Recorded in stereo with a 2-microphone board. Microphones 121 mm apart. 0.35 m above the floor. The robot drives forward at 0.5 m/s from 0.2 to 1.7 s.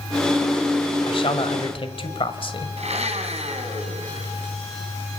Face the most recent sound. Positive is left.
turn(degrees=-65)  # may be behind; listen again after turning